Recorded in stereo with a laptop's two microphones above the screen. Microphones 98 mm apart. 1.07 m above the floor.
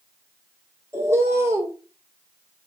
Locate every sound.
0.9 s a bird: 25° right (ahead or behind), 1.1 m